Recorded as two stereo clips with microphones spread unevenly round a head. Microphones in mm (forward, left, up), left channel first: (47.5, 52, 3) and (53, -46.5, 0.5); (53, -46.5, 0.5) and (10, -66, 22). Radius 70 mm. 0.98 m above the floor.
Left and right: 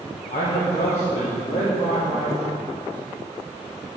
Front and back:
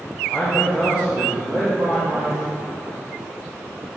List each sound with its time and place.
0.3 s a man speaking: 110° left, 1.2 m; by 3.0 s 155° left, 2.5 m